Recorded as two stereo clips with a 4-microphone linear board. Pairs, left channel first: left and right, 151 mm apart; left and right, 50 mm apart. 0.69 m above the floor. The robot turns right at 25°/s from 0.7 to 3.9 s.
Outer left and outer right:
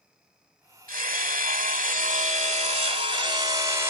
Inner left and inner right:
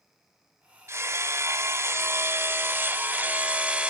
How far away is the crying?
No crying in this recording.